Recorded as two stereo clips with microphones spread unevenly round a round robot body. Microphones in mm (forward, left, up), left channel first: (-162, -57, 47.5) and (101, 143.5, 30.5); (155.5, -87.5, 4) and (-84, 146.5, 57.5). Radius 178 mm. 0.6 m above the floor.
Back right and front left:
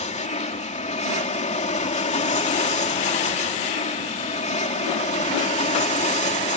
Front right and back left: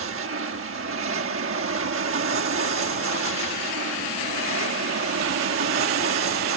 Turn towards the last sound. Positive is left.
turn(degrees=165)